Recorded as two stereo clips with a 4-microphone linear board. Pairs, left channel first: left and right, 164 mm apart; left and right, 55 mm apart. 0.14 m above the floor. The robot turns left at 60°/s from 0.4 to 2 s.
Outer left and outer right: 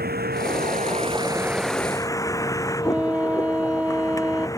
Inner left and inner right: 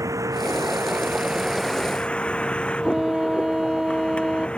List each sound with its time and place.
0.0 s a vehicle: 105° right; by 4.6 s 160° left
2.8 s a flute: 10° right (ahead or behind)